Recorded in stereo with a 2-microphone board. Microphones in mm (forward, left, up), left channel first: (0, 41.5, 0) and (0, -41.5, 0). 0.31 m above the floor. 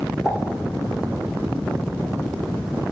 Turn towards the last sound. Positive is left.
turn(degrees=0)  # may be behind; listen again after turning